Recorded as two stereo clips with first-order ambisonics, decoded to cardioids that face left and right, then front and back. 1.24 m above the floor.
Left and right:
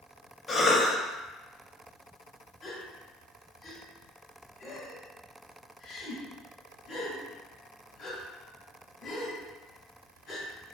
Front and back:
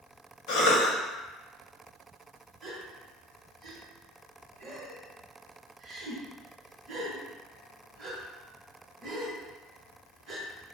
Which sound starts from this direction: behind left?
A gasp, at 2.6 s.